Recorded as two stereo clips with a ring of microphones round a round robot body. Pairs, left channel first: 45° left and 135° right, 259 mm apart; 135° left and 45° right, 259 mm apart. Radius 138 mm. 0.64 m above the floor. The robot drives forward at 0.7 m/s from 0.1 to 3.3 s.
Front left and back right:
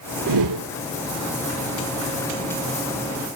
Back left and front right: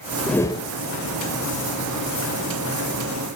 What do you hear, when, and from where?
0.3 s a whoosh: 135° right, 0.5 m; by 0.7 s 155° right, 0.7 m